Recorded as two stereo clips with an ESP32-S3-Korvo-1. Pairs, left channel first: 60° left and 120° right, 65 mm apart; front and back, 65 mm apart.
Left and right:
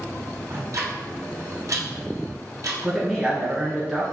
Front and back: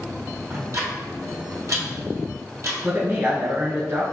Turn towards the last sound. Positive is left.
turn(degrees=160)